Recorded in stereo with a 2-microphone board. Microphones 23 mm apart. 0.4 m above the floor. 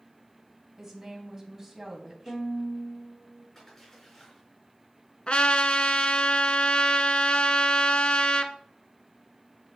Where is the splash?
15° left (ahead or behind), 4 m.